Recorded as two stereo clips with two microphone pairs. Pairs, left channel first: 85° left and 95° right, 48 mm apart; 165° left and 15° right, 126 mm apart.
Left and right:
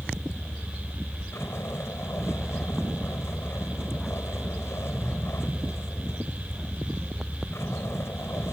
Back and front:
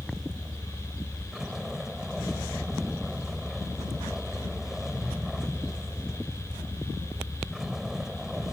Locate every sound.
0.0 s a vehicle: 70° left